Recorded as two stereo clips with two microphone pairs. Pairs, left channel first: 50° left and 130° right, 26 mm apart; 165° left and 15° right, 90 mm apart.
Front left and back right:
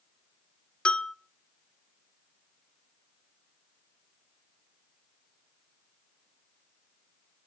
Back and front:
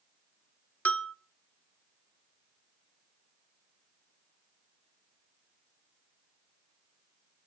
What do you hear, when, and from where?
0.8 s a bell: 95° left, 1.0 m